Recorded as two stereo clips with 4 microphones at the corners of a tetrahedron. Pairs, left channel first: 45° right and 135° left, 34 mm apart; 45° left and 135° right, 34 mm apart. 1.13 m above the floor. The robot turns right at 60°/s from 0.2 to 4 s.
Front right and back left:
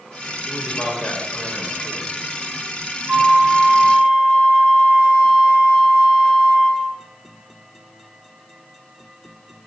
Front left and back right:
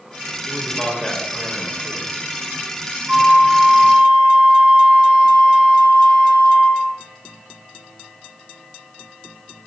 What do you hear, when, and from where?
0.5 s a man speaking: 65° right, 2.5 m; by 2.1 s 30° left, 2.5 m
3.1 s a flute: 160° left, 1.7 m; by 6.9 s 145° right, 1.7 m